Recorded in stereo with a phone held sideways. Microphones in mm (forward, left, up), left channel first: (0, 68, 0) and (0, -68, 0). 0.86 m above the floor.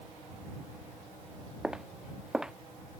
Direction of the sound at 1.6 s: 5° right (ahead or behind).